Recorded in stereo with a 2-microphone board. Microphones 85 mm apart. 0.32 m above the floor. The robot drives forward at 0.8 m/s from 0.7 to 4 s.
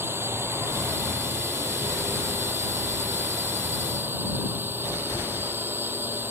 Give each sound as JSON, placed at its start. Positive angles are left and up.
{"t": 0.0, "sound": "a drone", "side_deg": -30}